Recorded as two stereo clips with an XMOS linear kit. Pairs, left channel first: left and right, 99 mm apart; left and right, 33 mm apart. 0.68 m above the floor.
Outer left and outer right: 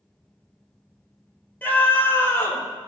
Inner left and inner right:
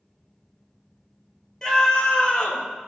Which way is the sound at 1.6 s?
15° left (ahead or behind).